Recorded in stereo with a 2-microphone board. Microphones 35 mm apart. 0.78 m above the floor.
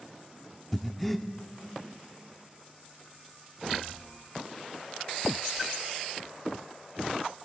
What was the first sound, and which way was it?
Breathing, 5° left (ahead or behind).